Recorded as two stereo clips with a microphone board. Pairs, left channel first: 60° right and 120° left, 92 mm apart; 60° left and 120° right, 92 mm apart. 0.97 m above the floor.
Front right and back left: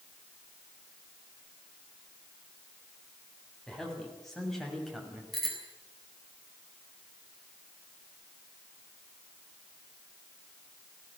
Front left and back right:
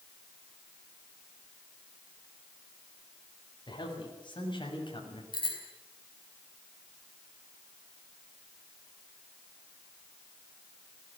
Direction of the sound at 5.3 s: 25° left.